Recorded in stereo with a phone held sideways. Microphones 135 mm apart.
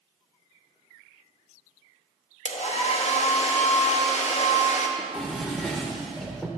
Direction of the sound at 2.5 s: 55° left (ahead or behind).